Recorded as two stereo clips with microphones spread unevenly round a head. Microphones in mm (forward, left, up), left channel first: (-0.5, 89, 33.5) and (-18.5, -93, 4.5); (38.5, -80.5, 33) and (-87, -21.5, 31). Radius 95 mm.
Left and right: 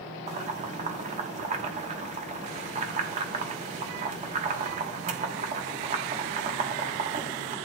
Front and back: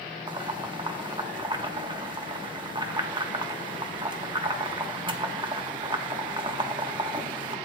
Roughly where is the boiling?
Behind right.